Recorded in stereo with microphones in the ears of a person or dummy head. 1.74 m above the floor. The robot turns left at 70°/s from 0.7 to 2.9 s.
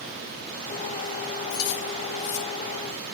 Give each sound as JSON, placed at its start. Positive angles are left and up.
{"t": 1.5, "sound": "keys jangling", "side_deg": 60, "distance_m": 2.5}